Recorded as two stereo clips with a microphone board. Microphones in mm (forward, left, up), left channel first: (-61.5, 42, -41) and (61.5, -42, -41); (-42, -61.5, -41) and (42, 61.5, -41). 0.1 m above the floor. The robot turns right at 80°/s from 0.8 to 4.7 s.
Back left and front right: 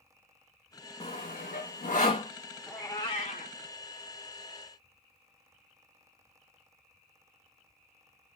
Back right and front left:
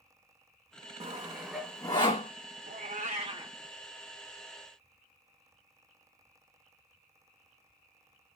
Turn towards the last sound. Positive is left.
turn(degrees=-140)